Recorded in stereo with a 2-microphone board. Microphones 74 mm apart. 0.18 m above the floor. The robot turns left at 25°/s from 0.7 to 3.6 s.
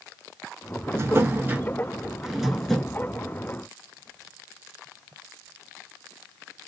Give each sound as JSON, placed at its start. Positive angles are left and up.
{"t": 0.9, "sound": "a drawer", "azimuth_deg": -140, "distance_m": 0.5}